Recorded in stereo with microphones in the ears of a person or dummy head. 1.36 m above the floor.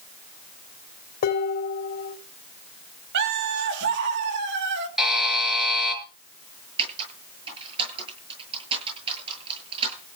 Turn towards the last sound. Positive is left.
turn(degrees=-30)  # may be behind; listen again after turning